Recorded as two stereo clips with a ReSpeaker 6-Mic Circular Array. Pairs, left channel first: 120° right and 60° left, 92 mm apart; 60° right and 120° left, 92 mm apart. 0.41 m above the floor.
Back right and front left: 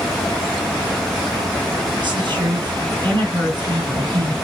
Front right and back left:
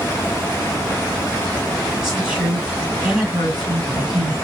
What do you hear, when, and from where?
2.0 s a woman speaking: 40° left, 3.5 m